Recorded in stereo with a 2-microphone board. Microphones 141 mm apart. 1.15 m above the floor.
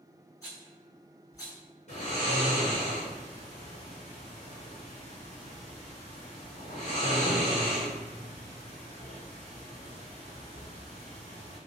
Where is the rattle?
25° left (ahead or behind), 1.6 m.